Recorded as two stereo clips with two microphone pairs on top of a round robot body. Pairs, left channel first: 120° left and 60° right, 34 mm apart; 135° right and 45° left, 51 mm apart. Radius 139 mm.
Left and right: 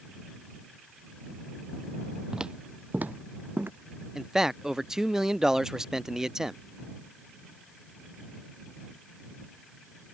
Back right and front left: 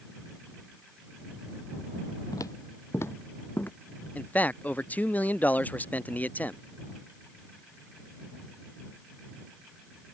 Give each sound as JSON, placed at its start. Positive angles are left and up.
{"t": 2.3, "sound": "footsteps", "azimuth_deg": -130}
{"t": 4.2, "sound": "a man speaking", "azimuth_deg": -115}